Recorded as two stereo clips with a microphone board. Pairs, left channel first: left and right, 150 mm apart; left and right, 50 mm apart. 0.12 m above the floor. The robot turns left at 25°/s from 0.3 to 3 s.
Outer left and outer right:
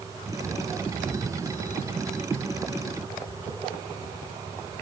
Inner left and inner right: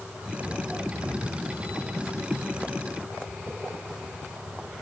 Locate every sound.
Only background noise.